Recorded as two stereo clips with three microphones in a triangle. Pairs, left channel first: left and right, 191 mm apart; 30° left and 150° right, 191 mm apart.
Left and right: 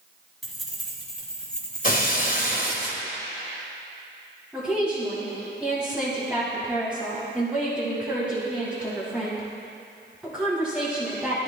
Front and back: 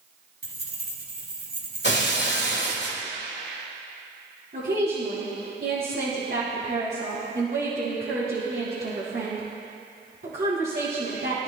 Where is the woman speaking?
175° right, 3 m.